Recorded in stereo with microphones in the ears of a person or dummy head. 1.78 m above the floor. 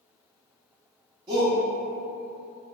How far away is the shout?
About 1.1 m.